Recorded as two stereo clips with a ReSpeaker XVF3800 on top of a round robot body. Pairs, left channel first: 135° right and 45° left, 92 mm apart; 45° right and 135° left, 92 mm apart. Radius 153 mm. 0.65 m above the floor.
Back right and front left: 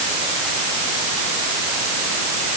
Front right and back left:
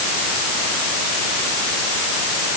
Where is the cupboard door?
I don't hear a cupboard door.